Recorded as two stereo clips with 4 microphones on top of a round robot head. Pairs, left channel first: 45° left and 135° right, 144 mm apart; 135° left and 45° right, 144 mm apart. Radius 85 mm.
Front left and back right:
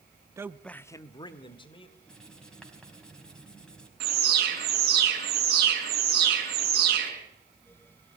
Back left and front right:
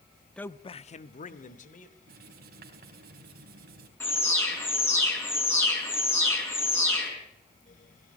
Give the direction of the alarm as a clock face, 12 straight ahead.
5 o'clock.